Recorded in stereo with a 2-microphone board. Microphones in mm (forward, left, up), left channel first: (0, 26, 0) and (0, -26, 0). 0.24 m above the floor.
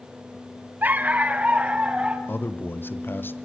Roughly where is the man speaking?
Left.